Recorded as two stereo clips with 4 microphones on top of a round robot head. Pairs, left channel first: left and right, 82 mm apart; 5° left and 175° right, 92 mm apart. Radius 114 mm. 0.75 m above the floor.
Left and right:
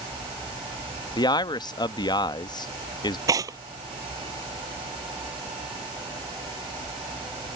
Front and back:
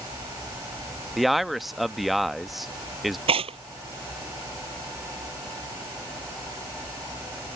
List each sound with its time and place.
1.2 s a man speaking: 95° left
3.3 s tearing paper: 145° right